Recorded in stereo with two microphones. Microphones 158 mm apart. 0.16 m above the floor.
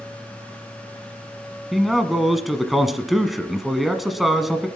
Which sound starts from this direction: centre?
A man speaking, at 1.7 s.